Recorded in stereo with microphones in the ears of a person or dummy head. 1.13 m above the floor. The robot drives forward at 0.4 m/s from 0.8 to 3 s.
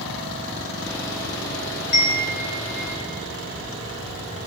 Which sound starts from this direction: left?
A chime, at 1.9 s.